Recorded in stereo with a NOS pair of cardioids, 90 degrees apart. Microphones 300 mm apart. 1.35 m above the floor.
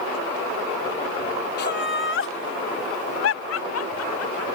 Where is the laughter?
35° left; by 4.5 s 60° left.